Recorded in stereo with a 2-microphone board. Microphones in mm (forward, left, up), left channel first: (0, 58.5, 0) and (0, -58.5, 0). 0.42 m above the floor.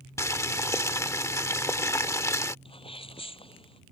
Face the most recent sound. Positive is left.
turn(degrees=50)  # may be behind; listen again after turning